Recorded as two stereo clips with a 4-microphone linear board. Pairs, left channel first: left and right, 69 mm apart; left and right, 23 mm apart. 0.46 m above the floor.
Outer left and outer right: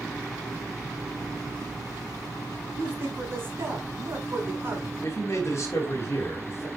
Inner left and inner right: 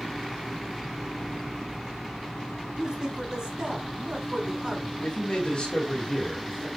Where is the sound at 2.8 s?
40° right (ahead or behind), 4 m.